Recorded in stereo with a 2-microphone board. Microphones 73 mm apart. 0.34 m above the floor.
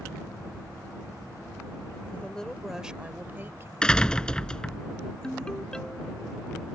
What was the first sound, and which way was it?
A woman speaking, 20° left (ahead or behind).